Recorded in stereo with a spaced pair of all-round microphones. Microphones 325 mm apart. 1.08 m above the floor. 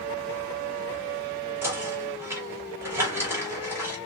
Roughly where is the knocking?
Centre.